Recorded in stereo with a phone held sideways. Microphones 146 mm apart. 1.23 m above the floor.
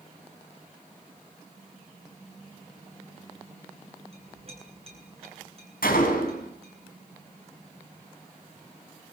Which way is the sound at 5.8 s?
85° left.